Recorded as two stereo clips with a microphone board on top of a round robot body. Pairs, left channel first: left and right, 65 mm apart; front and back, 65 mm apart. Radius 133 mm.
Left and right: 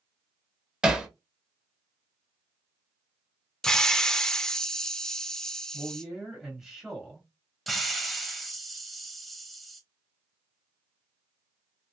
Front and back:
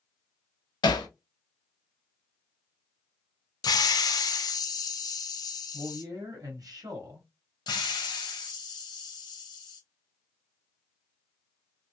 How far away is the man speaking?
About 1.0 m.